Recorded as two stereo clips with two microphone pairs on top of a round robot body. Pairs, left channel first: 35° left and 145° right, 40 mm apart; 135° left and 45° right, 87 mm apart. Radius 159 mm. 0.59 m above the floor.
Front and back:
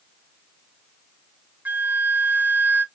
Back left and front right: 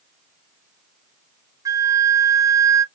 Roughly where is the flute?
Right.